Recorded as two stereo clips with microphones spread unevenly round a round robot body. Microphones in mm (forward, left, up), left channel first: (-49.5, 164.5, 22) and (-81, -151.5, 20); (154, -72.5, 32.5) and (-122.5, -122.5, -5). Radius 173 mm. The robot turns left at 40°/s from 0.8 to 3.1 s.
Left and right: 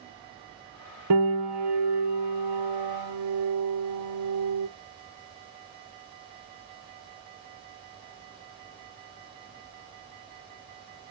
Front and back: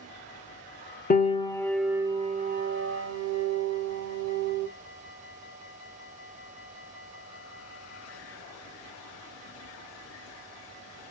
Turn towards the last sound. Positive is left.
turn(degrees=-130)